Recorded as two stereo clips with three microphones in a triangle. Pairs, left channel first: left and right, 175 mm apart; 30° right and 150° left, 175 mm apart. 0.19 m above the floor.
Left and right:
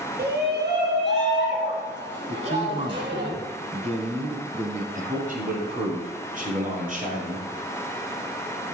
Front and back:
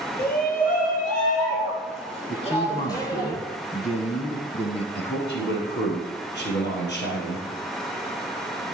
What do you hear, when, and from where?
0.2 s a shout: 60° right, 4 m; by 3.3 s 105° right, 5.5 m
2.3 s a man speaking: 60° right, 1.3 m
5.0 s a man speaking: 45° right, 4 m